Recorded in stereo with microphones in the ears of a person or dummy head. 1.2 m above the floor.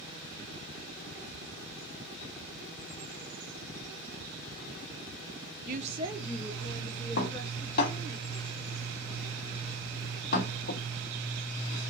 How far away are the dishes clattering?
About 2 m.